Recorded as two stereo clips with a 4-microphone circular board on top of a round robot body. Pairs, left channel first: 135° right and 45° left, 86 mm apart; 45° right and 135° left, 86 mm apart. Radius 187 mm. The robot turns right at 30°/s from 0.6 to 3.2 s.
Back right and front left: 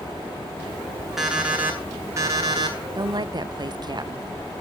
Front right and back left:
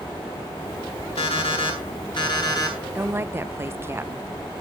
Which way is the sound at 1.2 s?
40° right.